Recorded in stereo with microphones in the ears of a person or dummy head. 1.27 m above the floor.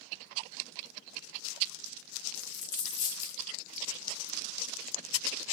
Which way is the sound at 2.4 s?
40° left (ahead or behind).